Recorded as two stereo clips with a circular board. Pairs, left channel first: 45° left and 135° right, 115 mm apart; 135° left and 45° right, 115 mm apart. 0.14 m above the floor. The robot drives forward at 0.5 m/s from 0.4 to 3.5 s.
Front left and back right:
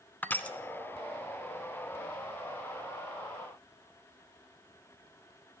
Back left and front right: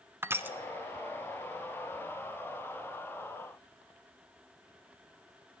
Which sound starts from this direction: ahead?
Crushing, at 0.2 s.